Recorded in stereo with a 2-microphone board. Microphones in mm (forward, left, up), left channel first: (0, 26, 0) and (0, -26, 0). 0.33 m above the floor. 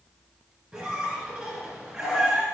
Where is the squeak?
5° right (ahead or behind), 3.5 m.